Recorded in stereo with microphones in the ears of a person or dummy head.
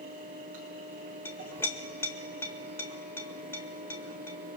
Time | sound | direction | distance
0.0 | a fan | 45° right (ahead or behind) | 3.5 m
1.2 | a clink | 15° left (ahead or behind) | 1.2 m